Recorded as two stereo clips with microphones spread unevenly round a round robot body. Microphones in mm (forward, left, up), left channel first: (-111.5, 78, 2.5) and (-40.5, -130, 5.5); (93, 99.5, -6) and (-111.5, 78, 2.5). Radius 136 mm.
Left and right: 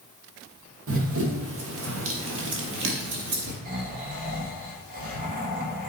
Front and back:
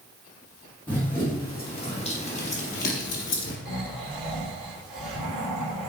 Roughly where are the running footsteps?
Right.